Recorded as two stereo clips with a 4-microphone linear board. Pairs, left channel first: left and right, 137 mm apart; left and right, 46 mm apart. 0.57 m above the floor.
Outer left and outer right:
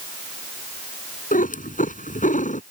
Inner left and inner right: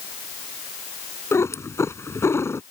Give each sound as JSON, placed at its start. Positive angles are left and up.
{"t": 1.3, "sound": "a cat meowing", "side_deg": 85}